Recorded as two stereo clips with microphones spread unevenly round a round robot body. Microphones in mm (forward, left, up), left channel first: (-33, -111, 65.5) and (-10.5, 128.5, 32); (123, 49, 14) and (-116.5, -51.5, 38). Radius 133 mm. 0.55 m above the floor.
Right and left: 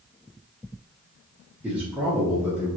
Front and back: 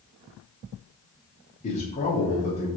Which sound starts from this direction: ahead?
A man speaking, at 1.6 s.